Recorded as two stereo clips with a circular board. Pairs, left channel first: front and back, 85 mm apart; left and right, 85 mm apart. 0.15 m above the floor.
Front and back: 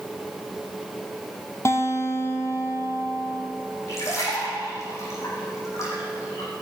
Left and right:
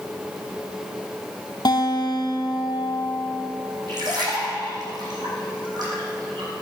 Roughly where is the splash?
Ahead right.